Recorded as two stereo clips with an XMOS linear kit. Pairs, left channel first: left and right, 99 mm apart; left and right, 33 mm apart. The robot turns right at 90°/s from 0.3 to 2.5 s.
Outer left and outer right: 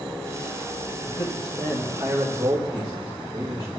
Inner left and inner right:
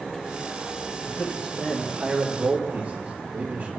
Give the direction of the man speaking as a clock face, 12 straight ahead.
9 o'clock.